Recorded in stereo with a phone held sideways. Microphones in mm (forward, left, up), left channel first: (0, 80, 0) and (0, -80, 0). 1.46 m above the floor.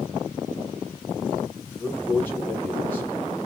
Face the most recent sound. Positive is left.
turn(degrees=15)  # may be behind; listen again after turning